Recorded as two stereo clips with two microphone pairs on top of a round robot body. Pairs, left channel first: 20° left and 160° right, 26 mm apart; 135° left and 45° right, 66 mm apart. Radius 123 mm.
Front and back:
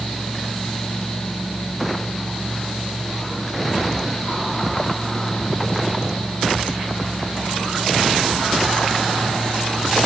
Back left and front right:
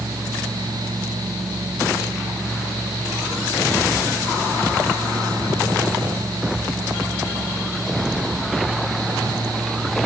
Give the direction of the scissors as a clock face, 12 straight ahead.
I don't hear scissors.